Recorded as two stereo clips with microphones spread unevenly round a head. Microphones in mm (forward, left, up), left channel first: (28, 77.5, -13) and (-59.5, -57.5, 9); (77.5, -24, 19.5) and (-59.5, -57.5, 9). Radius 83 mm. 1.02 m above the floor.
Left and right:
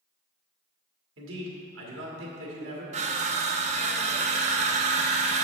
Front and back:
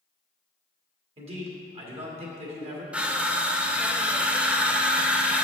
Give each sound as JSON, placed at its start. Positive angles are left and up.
{"t": 1.2, "sound": "a man speaking", "azimuth_deg": -120, "distance_m": 1.9}
{"t": 2.9, "sound": "crushing", "azimuth_deg": -85, "distance_m": 0.6}